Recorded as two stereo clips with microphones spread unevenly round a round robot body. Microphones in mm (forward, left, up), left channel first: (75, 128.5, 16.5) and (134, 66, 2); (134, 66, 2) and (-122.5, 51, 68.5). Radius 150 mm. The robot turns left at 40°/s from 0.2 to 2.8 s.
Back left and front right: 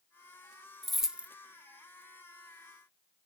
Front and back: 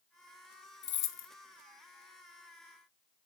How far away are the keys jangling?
About 0.8 m.